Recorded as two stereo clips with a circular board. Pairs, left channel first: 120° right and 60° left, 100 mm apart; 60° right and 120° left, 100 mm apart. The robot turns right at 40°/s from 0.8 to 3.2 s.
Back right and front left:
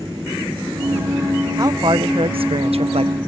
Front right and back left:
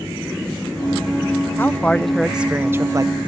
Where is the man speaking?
5° left; by 3.1 s 70° left.